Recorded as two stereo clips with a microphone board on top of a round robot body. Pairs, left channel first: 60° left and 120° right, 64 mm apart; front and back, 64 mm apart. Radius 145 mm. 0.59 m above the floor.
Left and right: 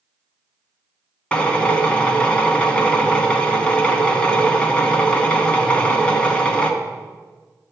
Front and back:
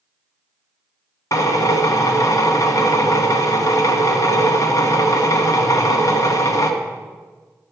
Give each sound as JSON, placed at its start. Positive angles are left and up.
{"t": 1.3, "sound": "a drill", "azimuth_deg": -10, "distance_m": 1.4}